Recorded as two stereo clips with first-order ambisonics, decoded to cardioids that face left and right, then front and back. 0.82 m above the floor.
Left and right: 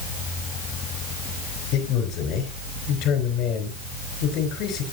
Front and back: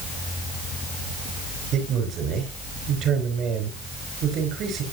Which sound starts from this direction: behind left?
A man speaking, at 1.7 s.